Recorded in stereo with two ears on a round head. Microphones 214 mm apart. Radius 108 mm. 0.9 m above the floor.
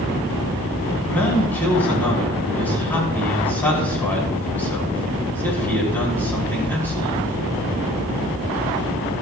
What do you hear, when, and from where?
1.1 s a man speaking: 10° left (ahead or behind), 6 m